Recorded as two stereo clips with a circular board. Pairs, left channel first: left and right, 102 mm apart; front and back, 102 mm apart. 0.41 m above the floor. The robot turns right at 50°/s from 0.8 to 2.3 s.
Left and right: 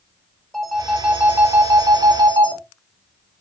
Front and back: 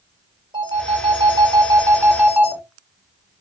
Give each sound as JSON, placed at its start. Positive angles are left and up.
{"t": 0.5, "sound": "a phone ringing", "azimuth_deg": 175, "distance_m": 0.7}